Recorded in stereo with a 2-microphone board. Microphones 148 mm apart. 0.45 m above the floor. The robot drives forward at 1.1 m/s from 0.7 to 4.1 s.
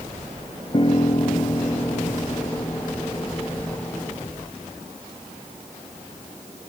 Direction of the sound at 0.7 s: 40° left (ahead or behind).